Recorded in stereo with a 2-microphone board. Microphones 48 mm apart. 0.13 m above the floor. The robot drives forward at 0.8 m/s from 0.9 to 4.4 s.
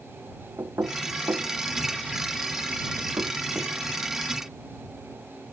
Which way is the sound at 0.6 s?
75° right (ahead or behind).